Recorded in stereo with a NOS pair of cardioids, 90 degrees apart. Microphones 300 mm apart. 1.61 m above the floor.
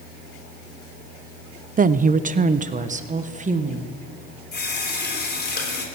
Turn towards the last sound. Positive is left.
turn(degrees=35)